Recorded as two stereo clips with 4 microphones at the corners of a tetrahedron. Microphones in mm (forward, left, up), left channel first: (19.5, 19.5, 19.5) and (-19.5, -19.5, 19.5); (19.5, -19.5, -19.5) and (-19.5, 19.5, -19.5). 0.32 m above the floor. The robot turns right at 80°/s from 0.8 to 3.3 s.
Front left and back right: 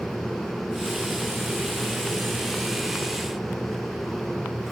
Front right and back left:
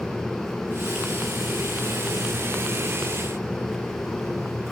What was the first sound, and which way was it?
Only background noise.